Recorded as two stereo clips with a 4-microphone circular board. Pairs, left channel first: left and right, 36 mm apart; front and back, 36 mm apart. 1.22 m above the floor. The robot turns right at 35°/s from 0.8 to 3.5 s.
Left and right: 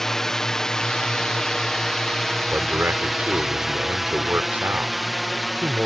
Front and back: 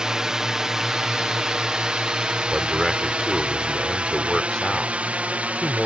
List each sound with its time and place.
0.0 s a drone: 150° left; by 5.9 s straight behind
2.5 s a man speaking: 110° right; by 5.9 s 75° right